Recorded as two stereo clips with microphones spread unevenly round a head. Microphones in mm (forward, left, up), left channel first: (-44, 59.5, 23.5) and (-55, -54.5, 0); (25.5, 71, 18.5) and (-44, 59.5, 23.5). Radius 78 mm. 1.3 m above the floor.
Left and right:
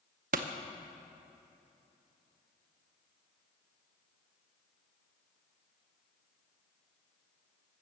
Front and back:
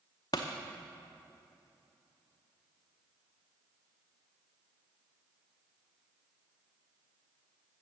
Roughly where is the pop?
Ahead right.